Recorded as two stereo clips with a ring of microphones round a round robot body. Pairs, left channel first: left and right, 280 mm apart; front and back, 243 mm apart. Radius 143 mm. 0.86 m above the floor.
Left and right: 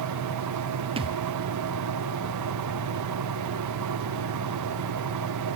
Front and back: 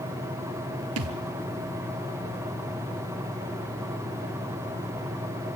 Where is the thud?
160° right, 1.4 m.